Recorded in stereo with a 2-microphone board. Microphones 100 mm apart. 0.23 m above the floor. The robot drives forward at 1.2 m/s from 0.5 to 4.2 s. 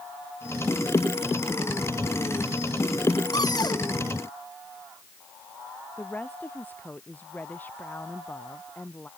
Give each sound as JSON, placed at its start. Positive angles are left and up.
{"t": 3.3, "sound": "a cupboard door", "side_deg": 40}
{"t": 6.0, "sound": "a woman speaking", "side_deg": 15}